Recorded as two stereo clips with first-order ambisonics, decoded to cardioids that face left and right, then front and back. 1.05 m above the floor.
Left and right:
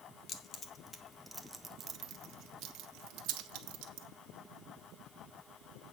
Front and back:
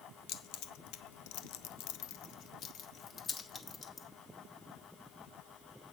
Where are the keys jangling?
30° left, 1.2 m; by 4.1 s 70° right, 1.8 m.